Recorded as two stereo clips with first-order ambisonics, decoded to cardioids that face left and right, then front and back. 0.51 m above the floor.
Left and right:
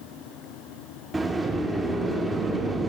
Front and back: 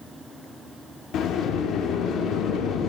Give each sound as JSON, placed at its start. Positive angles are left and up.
{"t": 1.1, "sound": "a sliding door", "azimuth_deg": -15, "distance_m": 0.8}